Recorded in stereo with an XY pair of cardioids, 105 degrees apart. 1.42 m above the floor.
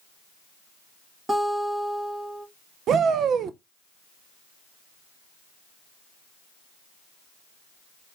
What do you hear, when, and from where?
1.3 s a guitar: 25° right, 1.8 m
2.9 s a shout: 65° right, 0.7 m